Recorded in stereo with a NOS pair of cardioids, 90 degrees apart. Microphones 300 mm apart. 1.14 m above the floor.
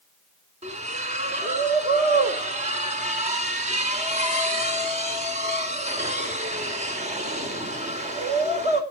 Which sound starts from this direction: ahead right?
A splash, at 0.6 s.